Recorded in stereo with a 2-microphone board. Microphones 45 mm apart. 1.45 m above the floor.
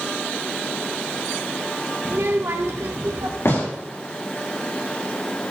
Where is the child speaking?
50° right (ahead or behind), 1.1 m; by 3.4 s 65° right (ahead or behind), 1.5 m.